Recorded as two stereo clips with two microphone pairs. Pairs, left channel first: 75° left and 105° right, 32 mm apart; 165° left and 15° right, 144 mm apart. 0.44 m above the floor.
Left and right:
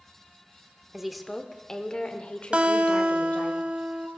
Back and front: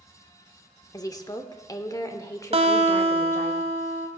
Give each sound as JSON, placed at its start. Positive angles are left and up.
{"t": 0.9, "sound": "a woman speaking", "azimuth_deg": 180, "distance_m": 0.8}
{"t": 2.5, "sound": "a guitar", "azimuth_deg": -55, "distance_m": 1.2}